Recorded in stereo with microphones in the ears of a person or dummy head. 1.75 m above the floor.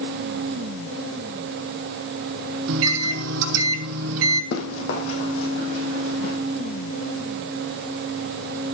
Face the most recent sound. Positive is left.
turn(degrees=60)  # may be behind; listen again after turning